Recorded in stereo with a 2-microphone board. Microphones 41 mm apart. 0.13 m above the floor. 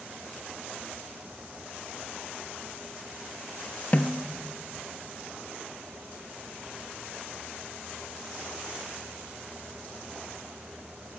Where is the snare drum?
35° left (ahead or behind), 0.5 m.